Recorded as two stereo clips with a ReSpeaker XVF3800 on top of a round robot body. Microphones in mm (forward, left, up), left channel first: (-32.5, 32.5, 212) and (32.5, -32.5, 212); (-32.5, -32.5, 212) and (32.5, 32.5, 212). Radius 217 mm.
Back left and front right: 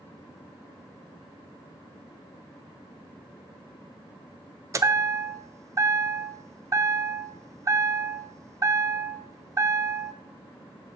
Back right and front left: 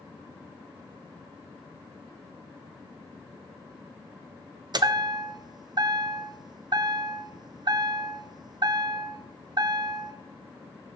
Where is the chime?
10° left, 0.6 m.